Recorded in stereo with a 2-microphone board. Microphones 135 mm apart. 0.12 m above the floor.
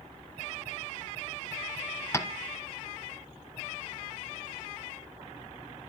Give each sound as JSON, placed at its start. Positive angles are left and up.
{"t": 2.1, "sound": "tapping", "side_deg": 20, "distance_m": 1.3}